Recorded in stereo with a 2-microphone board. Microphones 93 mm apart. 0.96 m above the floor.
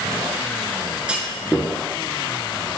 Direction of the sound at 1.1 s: 10° right (ahead or behind).